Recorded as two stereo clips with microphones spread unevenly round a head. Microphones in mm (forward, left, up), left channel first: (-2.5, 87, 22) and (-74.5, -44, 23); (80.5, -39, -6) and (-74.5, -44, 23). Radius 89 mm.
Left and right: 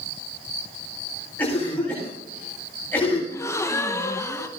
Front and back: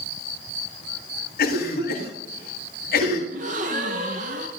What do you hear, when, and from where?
1.4 s a cough: 20° right, 7.5 m
3.3 s a gasp: 130° left, 1.3 m